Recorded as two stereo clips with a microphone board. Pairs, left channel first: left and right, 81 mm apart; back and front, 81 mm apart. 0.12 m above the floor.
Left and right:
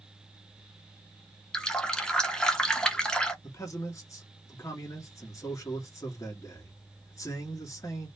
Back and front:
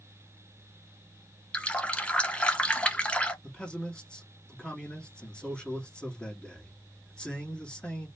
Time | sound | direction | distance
1.5 | a running tap | 145° left | 0.7 m
3.4 | a man speaking | 110° left | 1.6 m